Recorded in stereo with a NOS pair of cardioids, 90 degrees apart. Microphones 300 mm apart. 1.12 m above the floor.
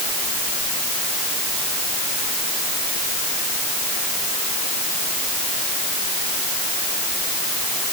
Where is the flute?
I don't hear a flute.